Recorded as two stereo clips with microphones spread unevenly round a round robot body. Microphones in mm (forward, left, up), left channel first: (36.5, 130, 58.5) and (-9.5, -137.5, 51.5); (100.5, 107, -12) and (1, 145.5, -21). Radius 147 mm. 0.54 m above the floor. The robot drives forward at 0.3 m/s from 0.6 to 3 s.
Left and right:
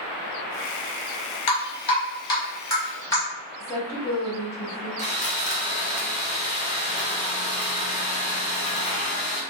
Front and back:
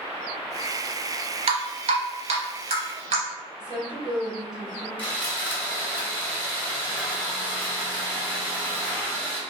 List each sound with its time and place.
1.5 s dripping: 145° left, 0.8 m; by 3.2 s 160° left, 1.2 m
3.6 s a woman speaking: 160° left, 1.4 m
5.0 s sawing: 40° left, 1.1 m